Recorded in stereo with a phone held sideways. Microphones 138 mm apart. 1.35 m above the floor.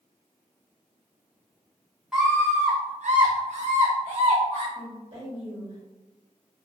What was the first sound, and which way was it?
A scream, 5° right (ahead or behind).